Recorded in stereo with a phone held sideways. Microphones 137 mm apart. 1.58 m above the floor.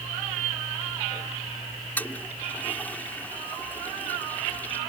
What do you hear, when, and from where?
2.0 s a toilet flushing: 15° left (ahead or behind)